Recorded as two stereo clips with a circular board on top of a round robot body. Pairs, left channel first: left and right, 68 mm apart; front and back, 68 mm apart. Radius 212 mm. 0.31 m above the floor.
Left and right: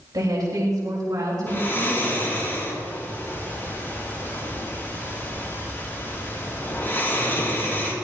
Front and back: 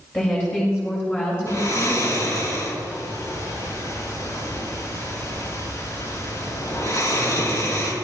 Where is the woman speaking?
60° right, 5 m; by 2.3 s 50° right, 6 m.